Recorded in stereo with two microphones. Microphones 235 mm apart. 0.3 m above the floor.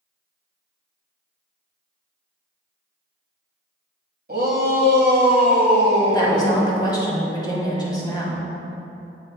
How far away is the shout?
About 1.4 m.